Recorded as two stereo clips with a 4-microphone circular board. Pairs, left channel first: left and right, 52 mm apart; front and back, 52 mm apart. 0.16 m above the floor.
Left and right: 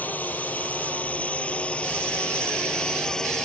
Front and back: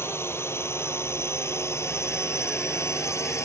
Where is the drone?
35° left; by 3.5 s 10° left.